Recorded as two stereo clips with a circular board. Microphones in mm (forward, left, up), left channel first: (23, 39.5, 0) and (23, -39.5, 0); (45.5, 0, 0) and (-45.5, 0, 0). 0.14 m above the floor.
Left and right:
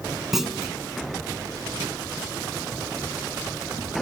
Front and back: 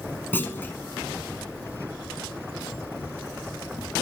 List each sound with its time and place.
0.3 s a clunk: 15° right, 1.3 m